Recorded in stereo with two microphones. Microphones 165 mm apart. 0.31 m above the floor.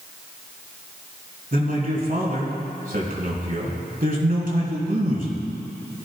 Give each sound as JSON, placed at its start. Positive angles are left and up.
{"t": 1.5, "sound": "a man speaking", "side_deg": -60, "distance_m": 4.0}